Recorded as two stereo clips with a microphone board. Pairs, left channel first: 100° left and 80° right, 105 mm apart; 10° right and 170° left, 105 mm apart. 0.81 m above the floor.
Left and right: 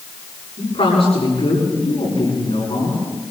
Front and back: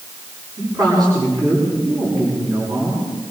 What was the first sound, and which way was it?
A man speaking, 120° left.